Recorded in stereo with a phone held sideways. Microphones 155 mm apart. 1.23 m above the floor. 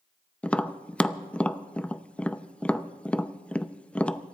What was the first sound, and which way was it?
Tapping, 5° left (ahead or behind).